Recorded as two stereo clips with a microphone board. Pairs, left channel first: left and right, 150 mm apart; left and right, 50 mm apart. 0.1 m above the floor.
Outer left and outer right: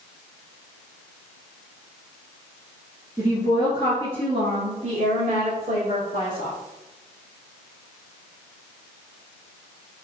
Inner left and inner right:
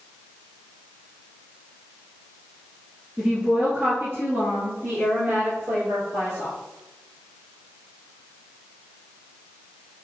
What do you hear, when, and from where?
3.2 s a woman speaking: 20° right (ahead or behind), 1.2 m; by 6.5 s 60° right (ahead or behind), 2.5 m